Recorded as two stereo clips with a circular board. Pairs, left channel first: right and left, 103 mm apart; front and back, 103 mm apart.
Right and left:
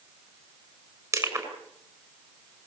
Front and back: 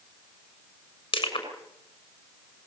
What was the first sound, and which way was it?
Crushing, 35° left.